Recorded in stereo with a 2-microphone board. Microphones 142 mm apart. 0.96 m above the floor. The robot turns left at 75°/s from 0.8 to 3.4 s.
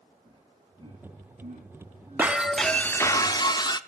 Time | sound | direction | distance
0.2 | laughter | 30° right (ahead or behind) | 1.8 m
2.2 | breaking glass | 155° right | 0.5 m